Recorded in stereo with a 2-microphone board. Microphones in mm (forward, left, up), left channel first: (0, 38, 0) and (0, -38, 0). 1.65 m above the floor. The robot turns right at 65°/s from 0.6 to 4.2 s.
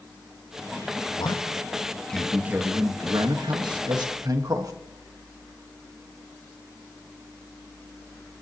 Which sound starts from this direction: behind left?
A man speaking, at 1.2 s.